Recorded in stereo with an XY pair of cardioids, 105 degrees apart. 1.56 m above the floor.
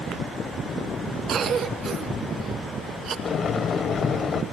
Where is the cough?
60° right, 2 m.